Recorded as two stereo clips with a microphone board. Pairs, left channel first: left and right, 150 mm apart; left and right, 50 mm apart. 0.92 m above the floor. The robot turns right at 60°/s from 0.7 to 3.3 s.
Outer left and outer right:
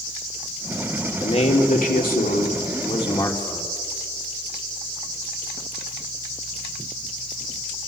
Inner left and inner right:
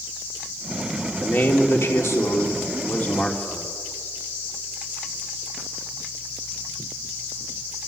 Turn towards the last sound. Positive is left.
turn(degrees=160)